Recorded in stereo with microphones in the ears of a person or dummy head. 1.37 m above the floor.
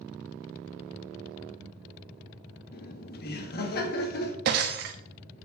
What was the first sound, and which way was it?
Laughter, 55° left (ahead or behind).